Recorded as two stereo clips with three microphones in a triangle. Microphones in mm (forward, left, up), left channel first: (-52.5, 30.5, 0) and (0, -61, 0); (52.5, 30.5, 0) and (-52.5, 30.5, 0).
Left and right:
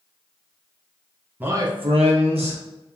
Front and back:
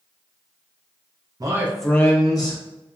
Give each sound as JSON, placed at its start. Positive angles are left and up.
{"t": 1.4, "sound": "a man speaking", "azimuth_deg": -135, "distance_m": 0.6}